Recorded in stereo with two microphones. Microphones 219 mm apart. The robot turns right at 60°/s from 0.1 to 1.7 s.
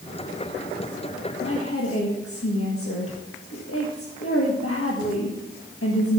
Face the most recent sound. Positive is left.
turn(degrees=70)  # may be behind; listen again after turning